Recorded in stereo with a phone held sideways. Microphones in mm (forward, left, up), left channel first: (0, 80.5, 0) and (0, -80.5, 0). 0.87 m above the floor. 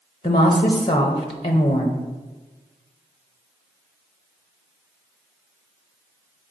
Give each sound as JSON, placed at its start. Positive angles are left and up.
{"t": 0.2, "sound": "a woman speaking", "side_deg": 35, "distance_m": 0.7}